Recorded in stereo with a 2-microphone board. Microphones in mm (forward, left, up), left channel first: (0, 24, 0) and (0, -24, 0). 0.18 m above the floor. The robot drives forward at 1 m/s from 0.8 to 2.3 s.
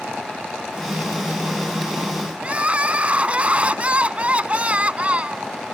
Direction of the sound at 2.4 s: 25° right (ahead or behind).